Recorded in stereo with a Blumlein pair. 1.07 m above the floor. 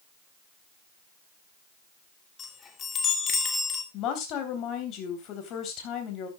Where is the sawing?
I don't hear sawing.